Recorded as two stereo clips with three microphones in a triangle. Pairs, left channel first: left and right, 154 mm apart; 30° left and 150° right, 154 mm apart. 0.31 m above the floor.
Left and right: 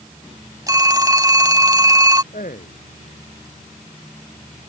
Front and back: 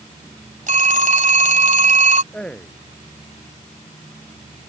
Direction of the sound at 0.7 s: 155° right.